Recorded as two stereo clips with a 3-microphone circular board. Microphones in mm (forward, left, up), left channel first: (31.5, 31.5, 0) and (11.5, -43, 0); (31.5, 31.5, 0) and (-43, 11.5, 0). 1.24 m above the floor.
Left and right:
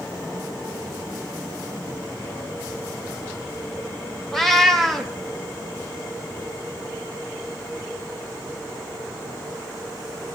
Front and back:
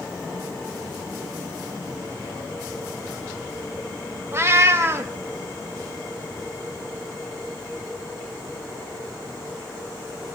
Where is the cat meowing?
160° left, 0.8 m.